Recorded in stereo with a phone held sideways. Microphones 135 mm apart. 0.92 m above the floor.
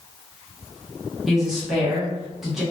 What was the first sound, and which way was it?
A woman speaking, 5° right (ahead or behind).